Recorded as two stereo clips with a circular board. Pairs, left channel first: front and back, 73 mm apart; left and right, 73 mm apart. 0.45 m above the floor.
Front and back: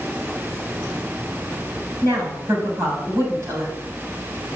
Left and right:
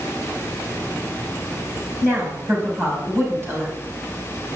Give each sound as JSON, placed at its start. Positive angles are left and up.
{"t": 2.0, "sound": "a woman speaking", "azimuth_deg": -140, "distance_m": 3.5}